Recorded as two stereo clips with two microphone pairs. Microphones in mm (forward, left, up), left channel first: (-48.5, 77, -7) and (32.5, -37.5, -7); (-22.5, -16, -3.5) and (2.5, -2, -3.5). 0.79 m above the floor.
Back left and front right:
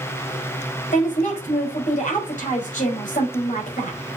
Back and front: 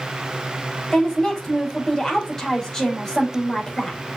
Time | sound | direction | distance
0.9 | a woman speaking | 140° left | 4.5 m